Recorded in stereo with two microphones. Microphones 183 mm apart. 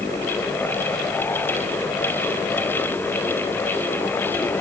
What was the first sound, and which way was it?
Only background noise.